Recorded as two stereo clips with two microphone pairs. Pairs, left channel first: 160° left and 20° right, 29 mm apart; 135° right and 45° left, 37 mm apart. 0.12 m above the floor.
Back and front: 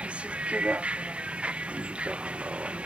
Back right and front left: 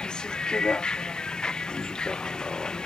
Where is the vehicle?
70° right.